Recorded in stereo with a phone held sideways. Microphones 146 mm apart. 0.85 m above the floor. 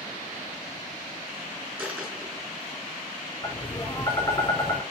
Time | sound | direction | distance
1.8 | a dropped coin | 10° right (ahead or behind) | 5.5 m
3.4 | tapping | 20° left (ahead or behind) | 3 m